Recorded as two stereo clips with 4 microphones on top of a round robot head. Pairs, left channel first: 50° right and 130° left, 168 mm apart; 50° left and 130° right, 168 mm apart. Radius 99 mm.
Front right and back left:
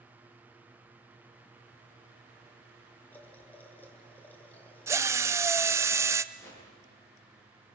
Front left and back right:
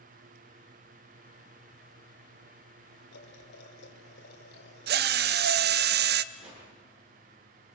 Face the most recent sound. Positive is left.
turn(degrees=-125)